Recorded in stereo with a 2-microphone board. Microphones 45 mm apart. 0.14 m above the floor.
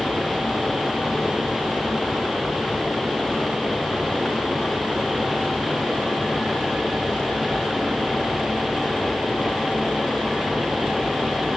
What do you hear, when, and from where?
Only background noise.